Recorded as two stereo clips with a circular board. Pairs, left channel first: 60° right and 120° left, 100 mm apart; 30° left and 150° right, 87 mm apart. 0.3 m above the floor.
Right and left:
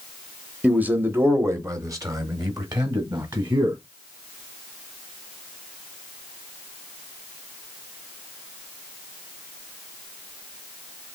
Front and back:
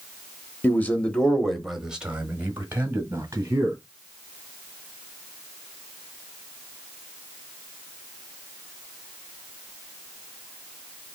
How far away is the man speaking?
About 1.0 m.